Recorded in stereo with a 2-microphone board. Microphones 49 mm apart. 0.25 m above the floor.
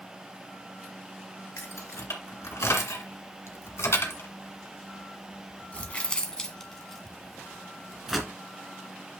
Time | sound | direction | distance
1.6 | keys jangling | 70° left (ahead or behind) | 2.5 m